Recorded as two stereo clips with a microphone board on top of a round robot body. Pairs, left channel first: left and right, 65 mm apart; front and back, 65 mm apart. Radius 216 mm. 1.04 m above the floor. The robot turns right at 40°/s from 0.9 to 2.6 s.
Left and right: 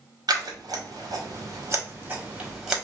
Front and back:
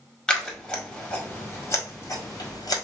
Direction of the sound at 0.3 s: 80° right.